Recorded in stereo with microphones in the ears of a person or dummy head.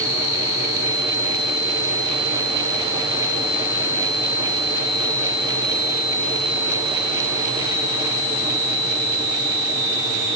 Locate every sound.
Only background noise.